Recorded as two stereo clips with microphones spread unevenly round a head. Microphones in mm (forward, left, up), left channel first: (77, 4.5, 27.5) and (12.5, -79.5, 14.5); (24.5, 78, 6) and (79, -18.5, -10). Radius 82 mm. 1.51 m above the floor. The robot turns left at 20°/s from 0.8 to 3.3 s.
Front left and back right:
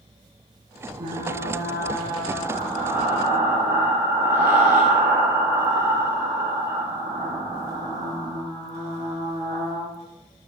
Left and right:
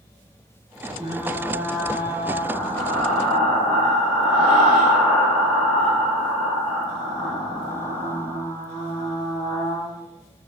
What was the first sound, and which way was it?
Frying, 125° right.